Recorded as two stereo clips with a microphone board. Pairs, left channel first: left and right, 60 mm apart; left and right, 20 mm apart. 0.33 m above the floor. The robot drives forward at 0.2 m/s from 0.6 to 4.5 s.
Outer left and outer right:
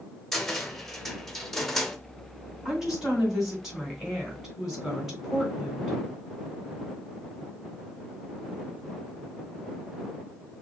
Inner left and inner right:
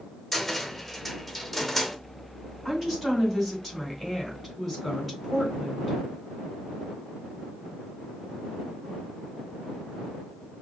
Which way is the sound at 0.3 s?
5° left (ahead or behind).